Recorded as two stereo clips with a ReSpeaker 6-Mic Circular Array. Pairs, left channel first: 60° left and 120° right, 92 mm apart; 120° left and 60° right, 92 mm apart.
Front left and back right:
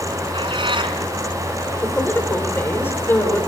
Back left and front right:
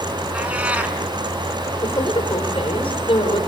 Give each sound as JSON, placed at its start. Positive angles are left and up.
{"t": 0.3, "sound": "a cat meowing", "azimuth_deg": -135, "distance_m": 2.5}
{"t": 1.8, "sound": "a woman speaking", "azimuth_deg": 125, "distance_m": 4.0}